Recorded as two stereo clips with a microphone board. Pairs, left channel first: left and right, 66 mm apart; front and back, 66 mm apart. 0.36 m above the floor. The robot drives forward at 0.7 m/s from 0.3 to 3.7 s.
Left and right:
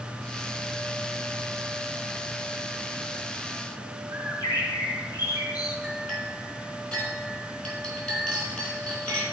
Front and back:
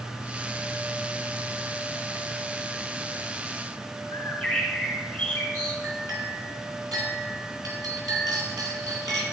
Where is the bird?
80° left, 3.5 m.